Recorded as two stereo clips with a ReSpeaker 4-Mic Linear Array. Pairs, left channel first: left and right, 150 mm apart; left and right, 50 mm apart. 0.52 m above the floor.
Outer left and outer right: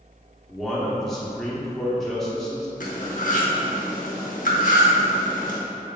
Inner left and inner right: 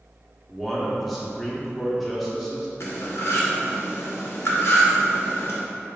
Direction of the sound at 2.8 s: 65° left (ahead or behind).